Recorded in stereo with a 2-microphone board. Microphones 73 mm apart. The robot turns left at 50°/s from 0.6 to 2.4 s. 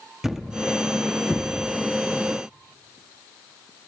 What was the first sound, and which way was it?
A thud, 5° right (ahead or behind).